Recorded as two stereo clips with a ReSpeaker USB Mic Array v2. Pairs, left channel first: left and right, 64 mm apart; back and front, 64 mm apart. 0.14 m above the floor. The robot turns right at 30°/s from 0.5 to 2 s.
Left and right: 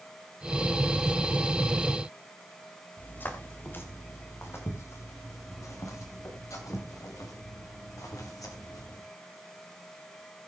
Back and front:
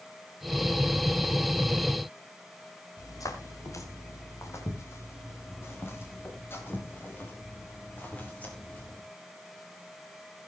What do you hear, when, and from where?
3.0 s footsteps: 155° left, 3.5 m; by 9.0 s 115° left, 6 m